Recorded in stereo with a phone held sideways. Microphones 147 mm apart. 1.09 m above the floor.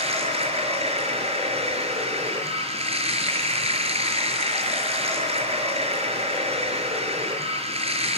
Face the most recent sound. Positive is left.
turn(degrees=-45)  # may be behind; listen again after turning